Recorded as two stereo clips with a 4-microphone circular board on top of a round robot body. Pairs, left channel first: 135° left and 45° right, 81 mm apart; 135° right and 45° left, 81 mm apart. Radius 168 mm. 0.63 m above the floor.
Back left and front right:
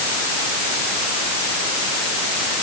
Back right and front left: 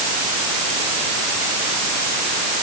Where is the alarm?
I don't hear an alarm.